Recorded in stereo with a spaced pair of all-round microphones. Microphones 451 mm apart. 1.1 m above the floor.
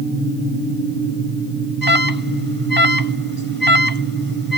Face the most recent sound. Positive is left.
turn(degrees=50)  # may be behind; listen again after turning